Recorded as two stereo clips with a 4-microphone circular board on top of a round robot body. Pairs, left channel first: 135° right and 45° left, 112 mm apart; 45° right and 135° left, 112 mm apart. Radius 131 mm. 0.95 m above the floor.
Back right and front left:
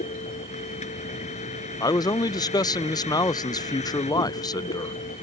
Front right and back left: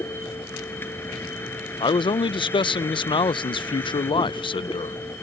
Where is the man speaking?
85° right.